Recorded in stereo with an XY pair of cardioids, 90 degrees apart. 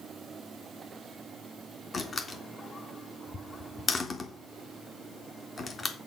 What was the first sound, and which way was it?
A door slam, 35° left.